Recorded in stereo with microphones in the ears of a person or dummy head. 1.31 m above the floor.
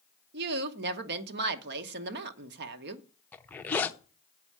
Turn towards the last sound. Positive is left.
turn(degrees=10)  # may be behind; listen again after turning